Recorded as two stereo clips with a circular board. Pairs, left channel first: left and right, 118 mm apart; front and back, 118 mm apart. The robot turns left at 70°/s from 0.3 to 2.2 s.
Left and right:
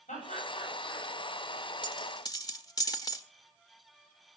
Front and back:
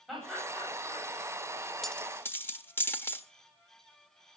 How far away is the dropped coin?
About 1.3 m.